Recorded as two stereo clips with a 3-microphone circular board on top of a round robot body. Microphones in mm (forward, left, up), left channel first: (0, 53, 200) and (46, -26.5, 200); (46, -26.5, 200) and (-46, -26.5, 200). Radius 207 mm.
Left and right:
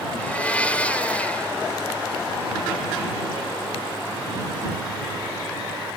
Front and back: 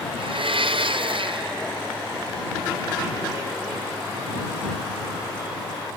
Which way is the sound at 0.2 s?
165° right.